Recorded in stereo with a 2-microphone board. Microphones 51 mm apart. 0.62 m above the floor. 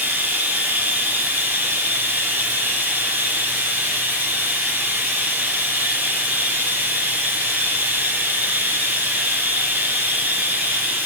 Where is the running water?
35° right (ahead or behind), 2.5 m.